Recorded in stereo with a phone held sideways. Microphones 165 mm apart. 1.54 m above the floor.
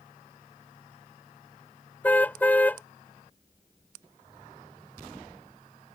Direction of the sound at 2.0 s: 10° left (ahead or behind).